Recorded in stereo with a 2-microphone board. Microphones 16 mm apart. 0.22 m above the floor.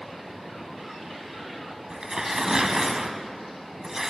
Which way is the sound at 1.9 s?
40° right (ahead or behind).